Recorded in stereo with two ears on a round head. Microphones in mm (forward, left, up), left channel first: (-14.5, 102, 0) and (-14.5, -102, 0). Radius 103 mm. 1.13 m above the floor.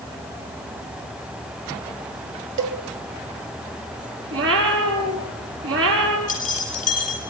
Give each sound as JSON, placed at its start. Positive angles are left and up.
{"t": 2.6, "sound": "a cowbell", "side_deg": -55, "distance_m": 2.0}
{"t": 4.3, "sound": "a cat meowing", "side_deg": -70, "distance_m": 4.5}
{"t": 6.3, "sound": "keys jangling", "side_deg": 40, "distance_m": 7.0}